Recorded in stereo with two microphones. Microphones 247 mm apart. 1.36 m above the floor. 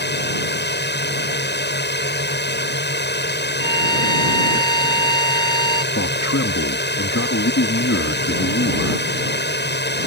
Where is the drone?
40° left (ahead or behind).